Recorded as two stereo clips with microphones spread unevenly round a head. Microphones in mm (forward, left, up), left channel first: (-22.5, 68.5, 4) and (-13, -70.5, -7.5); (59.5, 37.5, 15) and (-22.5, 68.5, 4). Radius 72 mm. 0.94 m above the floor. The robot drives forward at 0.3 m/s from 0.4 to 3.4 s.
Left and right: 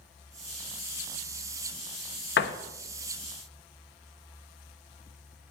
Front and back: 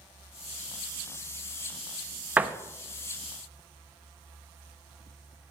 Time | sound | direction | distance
2.4 | a door slam | 90° left | 0.8 m